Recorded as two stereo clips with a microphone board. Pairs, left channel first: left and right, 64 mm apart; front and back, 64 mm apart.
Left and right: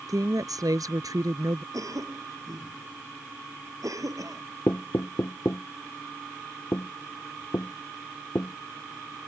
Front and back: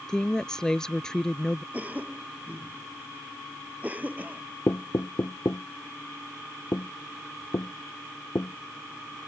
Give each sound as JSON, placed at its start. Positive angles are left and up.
{"t": 0.1, "sound": "a woman speaking", "azimuth_deg": -80}
{"t": 1.7, "sound": "a cough", "azimuth_deg": -115}
{"t": 4.7, "sound": "knocking", "azimuth_deg": 40}